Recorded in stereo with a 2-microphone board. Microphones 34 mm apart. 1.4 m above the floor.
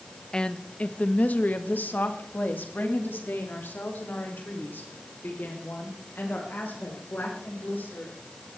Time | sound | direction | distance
0.3 | a woman speaking | 25° left (ahead or behind) | 1.2 m